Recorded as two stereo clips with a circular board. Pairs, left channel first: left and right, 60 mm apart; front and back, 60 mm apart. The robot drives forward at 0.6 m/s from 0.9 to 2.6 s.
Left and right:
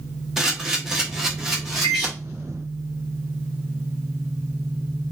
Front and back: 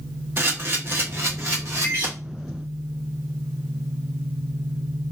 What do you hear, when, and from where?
0.4 s a camera shutter: 170° right, 0.7 m; by 2.1 s 175° right, 1.3 m
1.8 s a microwave: 55° left, 1.2 m; by 2.1 s 65° left, 1.2 m